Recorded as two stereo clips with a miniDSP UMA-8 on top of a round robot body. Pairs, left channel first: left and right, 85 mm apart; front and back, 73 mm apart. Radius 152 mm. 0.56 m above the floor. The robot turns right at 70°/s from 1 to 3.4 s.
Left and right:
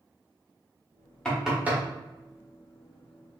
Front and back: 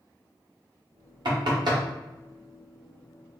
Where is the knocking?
170° left, 1.4 m; by 1.8 s 150° right, 1.4 m.